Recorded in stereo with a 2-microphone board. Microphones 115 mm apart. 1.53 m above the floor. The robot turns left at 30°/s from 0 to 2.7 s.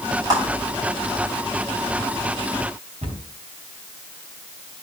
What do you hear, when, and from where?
0.3 s a clap: 35° right (ahead or behind), 7 m; by 0.4 s 40° right (ahead or behind), 7 m
3.0 s a cupboard door: 75° right (ahead or behind), 3.5 m